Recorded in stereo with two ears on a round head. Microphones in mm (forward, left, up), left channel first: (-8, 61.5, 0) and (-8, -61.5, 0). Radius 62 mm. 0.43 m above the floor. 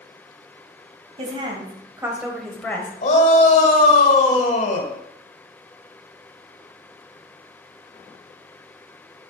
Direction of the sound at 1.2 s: 40° right (ahead or behind).